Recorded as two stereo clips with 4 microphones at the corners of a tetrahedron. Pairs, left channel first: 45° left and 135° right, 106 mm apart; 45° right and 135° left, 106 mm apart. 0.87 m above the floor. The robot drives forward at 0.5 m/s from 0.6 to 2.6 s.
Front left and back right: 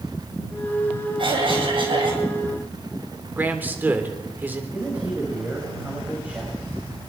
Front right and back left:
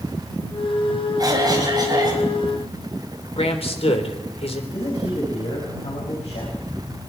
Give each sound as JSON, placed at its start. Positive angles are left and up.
{"t": 1.2, "sound": "a cough", "azimuth_deg": -170, "distance_m": 4.0}
{"t": 3.4, "sound": "a man speaking", "azimuth_deg": -65, "distance_m": 3.5}
{"t": 4.7, "sound": "a man speaking", "azimuth_deg": -60, "distance_m": 5.5}